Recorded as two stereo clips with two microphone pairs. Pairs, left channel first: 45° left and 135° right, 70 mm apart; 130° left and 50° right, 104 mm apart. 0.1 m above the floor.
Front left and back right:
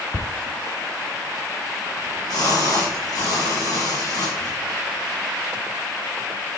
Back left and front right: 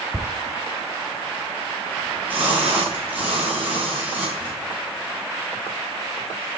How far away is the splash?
About 6 m.